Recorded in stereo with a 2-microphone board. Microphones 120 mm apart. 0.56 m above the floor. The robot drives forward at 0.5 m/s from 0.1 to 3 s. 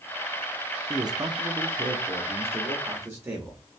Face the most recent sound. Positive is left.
turn(degrees=-20)  # may be behind; listen again after turning